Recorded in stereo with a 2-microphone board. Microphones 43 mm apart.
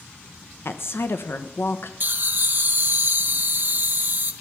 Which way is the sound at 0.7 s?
65° left (ahead or behind).